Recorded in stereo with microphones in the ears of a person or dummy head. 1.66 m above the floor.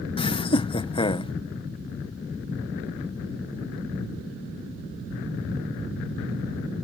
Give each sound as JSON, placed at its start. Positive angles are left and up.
{"t": 0.2, "sound": "laughter", "side_deg": 30}